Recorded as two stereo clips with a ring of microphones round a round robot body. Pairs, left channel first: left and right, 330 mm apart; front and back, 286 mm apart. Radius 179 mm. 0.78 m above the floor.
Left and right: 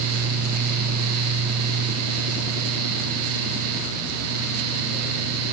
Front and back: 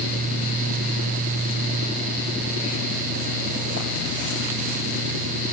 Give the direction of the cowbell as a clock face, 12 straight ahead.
No cowbell in this recording.